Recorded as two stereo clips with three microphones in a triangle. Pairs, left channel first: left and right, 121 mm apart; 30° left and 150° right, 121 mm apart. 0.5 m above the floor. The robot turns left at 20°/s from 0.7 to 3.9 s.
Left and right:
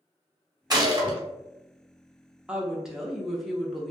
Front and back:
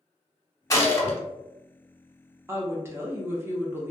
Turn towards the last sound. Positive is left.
turn(degrees=170)